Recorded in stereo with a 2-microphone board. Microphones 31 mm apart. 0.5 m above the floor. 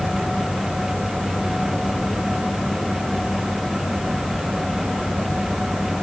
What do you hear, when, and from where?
Only background noise.